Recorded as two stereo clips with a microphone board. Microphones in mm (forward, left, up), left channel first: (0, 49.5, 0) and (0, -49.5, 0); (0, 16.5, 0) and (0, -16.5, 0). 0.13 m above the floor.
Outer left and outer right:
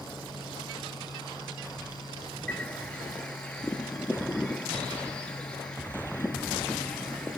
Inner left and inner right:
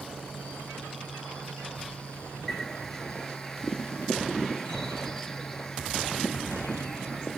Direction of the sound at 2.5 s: 10° left (ahead or behind).